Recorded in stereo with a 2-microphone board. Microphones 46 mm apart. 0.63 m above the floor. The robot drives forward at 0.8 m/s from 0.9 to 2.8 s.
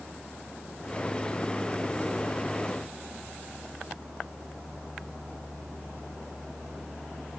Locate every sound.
Only background noise.